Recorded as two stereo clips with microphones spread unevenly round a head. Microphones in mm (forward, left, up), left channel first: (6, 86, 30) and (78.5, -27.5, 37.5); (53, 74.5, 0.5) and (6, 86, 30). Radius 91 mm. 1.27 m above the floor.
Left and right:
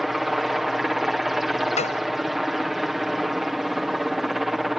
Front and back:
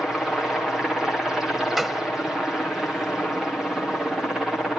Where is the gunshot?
85° left.